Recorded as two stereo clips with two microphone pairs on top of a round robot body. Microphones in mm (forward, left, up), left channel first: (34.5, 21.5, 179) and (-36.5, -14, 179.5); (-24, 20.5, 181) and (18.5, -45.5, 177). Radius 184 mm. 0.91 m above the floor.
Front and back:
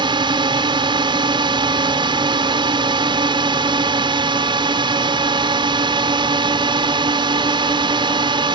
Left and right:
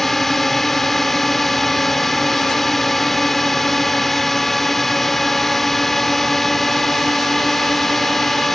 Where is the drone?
150° right.